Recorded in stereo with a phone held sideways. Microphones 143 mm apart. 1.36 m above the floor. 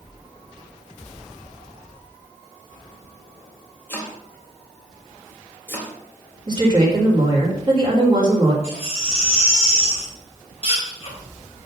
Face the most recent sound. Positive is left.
turn(degrees=45)  # may be behind; listen again after turning